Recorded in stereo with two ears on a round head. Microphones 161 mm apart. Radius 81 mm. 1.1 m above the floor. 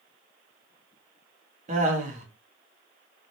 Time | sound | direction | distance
1.7 | laughter | 40° right (ahead or behind) | 0.8 m